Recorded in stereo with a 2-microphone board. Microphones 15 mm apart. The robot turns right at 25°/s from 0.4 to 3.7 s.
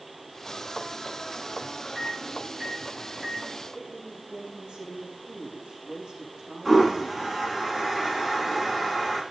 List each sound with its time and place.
1.9 s a microwave: 35° right (ahead or behind), 8 m; by 3.5 s 75° right (ahead or behind), 8 m
3.7 s a woman speaking: 70° right (ahead or behind), 8 m
6.7 s a toilet flushing: 20° right (ahead or behind), 10 m